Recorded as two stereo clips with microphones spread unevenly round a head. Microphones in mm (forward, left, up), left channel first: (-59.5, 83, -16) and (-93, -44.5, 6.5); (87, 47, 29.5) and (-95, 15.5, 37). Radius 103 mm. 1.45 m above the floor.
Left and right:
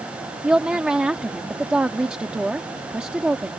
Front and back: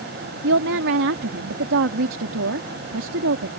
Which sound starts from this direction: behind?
A woman speaking, at 0.4 s.